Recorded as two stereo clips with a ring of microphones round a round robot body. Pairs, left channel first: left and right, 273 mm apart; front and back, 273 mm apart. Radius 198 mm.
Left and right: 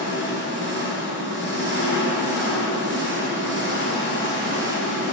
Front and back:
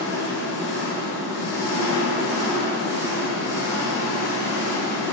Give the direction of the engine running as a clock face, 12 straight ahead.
1 o'clock.